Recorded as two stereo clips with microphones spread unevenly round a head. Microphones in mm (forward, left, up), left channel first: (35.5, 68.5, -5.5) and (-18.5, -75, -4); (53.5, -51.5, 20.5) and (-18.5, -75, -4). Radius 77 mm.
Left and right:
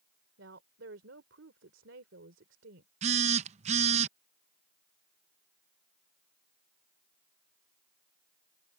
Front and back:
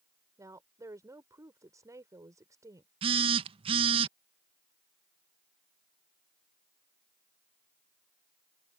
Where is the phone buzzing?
160° right.